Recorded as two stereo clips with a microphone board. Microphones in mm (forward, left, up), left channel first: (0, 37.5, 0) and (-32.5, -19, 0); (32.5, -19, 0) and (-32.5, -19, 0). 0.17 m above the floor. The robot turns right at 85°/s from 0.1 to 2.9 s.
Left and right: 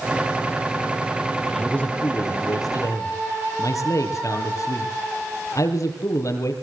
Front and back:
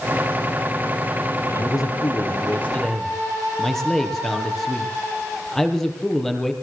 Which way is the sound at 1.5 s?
35° right.